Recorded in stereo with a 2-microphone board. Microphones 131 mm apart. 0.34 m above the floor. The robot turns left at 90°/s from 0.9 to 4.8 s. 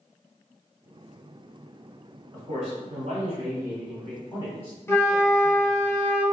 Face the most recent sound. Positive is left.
turn(degrees=20)  # may be behind; listen again after turning